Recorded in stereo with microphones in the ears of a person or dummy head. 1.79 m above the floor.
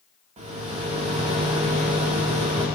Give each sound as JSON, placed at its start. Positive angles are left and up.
{"t": 0.4, "sound": "a rattle", "side_deg": -30, "distance_m": 2.0}